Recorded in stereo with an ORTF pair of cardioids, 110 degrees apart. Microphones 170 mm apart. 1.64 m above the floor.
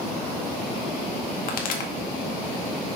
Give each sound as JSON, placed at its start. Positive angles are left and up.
{"t": 1.5, "sound": "a pop", "azimuth_deg": 55, "distance_m": 1.9}